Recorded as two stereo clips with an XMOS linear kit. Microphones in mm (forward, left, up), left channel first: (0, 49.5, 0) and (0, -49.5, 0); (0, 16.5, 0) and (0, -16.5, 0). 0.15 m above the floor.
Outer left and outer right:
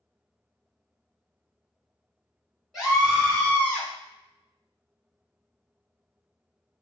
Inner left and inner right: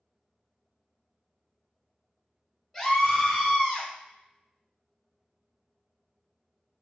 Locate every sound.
2.7 s a scream: centre (ahead or behind), 1.3 m; by 3.9 s 15° left (ahead or behind), 1.3 m